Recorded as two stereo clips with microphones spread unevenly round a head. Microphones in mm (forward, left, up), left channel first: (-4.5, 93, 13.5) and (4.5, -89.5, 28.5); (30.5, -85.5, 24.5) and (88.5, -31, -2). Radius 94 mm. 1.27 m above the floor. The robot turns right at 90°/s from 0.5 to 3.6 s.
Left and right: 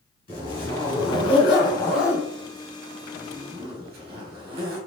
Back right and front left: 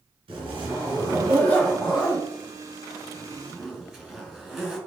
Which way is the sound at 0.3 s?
30° left.